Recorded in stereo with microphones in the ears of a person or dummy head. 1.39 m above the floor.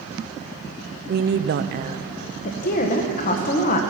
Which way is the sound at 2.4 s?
45° left (ahead or behind).